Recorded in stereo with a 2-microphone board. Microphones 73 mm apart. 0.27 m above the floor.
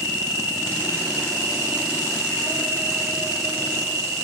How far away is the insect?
About 4.5 m.